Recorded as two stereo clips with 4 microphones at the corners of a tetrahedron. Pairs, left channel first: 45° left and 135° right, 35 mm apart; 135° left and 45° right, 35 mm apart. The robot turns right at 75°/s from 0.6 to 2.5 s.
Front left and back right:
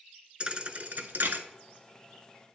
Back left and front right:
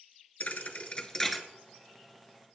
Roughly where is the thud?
Behind.